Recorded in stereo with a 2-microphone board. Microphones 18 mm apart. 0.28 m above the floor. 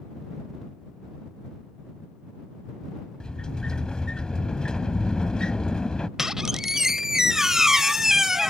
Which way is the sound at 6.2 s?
25° right (ahead or behind).